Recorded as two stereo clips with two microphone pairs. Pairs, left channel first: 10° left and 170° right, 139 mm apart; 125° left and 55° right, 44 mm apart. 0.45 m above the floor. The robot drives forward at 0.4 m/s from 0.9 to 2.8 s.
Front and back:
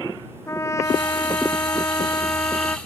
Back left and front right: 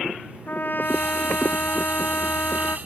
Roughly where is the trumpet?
Left.